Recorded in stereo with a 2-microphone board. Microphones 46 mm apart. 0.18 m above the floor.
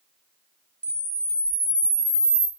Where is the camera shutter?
20° left (ahead or behind), 1.0 m.